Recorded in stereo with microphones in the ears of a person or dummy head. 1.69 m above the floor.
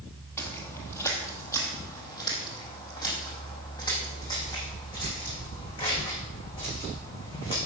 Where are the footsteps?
10° left (ahead or behind), 3 m; by 7.6 s 25° left (ahead or behind), 8.5 m.